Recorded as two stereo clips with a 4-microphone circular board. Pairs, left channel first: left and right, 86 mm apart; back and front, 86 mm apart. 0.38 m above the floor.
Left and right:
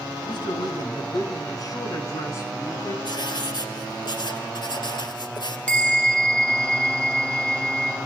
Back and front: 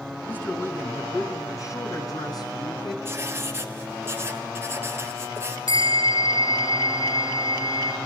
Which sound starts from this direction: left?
A man speaking, at 0.3 s.